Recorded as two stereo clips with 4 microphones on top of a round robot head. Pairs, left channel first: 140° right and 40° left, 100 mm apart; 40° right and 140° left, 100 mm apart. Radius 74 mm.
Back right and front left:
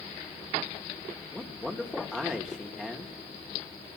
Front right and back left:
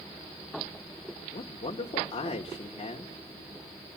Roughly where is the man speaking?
Ahead right.